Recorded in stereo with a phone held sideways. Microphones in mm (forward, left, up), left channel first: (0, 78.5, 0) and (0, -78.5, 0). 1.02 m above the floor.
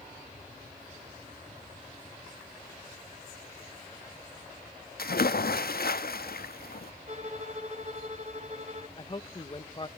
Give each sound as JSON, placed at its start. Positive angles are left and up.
{"t": 5.0, "sound": "a splash", "side_deg": 75, "distance_m": 0.8}
{"t": 7.1, "sound": "a violin", "side_deg": -45, "distance_m": 1.7}
{"t": 9.0, "sound": "a man speaking", "side_deg": 30, "distance_m": 1.3}